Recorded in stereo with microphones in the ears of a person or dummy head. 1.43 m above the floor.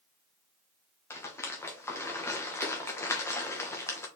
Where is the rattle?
15° left (ahead or behind), 0.9 m.